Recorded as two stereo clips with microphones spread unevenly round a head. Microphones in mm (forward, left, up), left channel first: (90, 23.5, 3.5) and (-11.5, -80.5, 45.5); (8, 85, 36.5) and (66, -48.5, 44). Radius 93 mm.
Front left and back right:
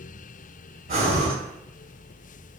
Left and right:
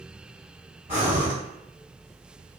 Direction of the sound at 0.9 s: 125° right.